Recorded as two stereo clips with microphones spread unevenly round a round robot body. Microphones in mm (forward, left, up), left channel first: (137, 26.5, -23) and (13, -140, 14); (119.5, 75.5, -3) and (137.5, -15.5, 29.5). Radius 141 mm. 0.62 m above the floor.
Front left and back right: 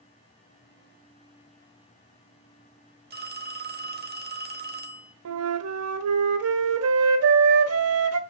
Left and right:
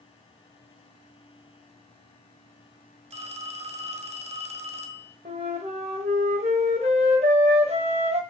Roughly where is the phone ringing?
Right.